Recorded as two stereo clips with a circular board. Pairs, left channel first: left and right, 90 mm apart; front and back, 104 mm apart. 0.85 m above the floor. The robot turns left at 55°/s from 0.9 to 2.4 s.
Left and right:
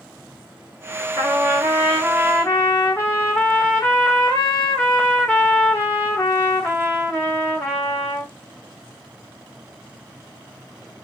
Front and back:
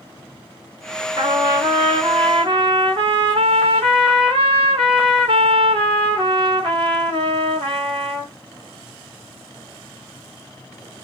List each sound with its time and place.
1.2 s a trumpet: 135° right, 1.7 m; by 8.3 s 155° left, 1.7 m